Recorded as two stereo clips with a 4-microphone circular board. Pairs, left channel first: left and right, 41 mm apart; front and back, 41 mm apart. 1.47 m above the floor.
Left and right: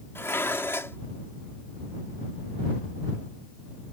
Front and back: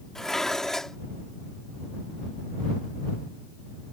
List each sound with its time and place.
0.1 s dishes clattering: 80° left